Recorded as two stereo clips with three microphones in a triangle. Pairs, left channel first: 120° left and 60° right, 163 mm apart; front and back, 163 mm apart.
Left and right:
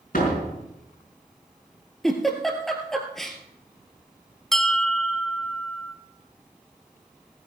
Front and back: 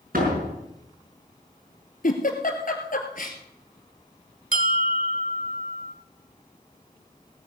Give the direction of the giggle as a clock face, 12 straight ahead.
11 o'clock.